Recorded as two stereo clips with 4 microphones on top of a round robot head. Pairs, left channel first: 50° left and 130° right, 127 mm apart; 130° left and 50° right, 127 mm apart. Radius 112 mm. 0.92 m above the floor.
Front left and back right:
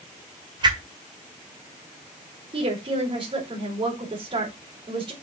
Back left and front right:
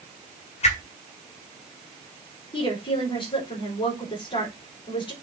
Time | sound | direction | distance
0.6 | a whoosh | 170° left | 1.9 m
2.5 | a woman speaking | straight behind | 4 m